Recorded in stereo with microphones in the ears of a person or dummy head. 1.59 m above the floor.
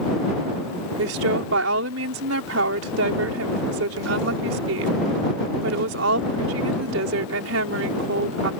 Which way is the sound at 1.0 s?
65° right (ahead or behind).